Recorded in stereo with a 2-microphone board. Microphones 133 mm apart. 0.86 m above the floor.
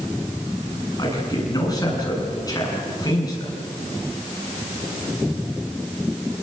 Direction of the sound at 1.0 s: 30° left (ahead or behind).